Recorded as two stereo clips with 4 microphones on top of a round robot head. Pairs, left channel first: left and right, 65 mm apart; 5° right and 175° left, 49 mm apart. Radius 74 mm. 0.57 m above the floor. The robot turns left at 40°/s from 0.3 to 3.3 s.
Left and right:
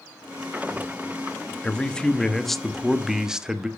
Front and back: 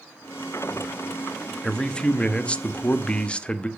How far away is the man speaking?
About 1.1 m.